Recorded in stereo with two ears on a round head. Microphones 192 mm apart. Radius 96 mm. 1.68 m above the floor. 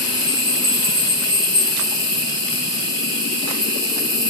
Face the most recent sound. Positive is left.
turn(degrees=-20)  # may be behind; listen again after turning